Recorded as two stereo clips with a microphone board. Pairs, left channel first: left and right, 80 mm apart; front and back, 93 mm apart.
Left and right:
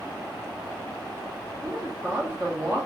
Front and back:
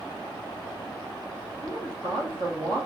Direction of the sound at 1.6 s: 155° right.